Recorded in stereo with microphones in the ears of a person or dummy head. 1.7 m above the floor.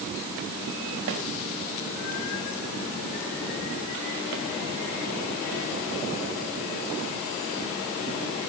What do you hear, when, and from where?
1.1 s a snare drum: 65° right (ahead or behind), 3 m